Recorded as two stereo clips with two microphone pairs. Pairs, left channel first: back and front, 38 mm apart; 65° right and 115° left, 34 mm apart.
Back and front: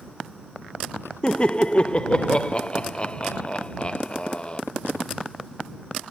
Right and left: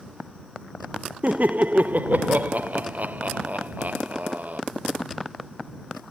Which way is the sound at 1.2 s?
115° left.